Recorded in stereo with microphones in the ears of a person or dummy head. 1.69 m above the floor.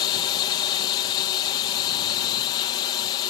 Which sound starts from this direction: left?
A drone, at 0.0 s.